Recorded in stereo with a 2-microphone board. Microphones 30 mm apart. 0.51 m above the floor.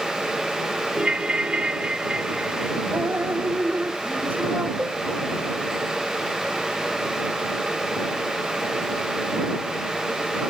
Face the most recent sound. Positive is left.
turn(degrees=-70)  # may be behind; listen again after turning